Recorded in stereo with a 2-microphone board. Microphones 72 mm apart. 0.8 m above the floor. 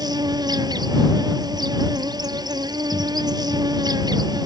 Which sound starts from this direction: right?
An insect, at 0.0 s.